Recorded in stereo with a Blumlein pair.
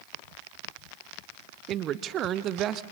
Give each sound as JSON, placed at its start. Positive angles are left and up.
{"t": 1.7, "sound": "a man speaking", "azimuth_deg": -30, "distance_m": 0.7}